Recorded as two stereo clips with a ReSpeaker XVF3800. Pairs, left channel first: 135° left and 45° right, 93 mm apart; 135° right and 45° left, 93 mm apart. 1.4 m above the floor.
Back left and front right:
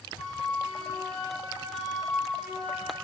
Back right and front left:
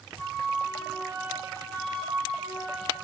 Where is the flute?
45° left, 2 m.